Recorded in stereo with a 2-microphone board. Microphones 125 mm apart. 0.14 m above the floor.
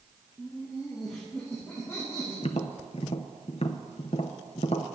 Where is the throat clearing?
No throat clearing in this recording.